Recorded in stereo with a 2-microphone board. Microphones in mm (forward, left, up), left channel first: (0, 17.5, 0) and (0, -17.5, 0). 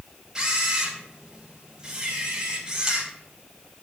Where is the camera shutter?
20° right (ahead or behind), 3 m.